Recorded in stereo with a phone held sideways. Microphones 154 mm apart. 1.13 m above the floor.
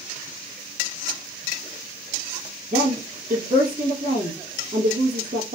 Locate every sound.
2.7 s a woman speaking: 75° right (ahead or behind), 1.0 m